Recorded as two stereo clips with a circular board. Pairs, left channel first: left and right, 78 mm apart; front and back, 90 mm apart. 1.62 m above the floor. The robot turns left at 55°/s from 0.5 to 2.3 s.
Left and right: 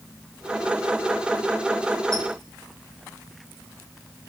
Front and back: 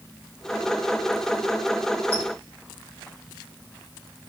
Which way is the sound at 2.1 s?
5° left.